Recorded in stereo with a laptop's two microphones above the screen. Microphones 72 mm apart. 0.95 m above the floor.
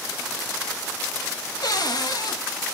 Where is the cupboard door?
60° left (ahead or behind), 1.5 m.